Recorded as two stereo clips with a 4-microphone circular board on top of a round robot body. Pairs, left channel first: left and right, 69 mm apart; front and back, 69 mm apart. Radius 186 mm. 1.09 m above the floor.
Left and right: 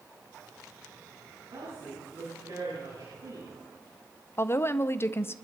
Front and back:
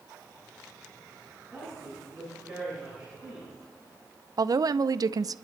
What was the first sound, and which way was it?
A woman speaking, 100° right.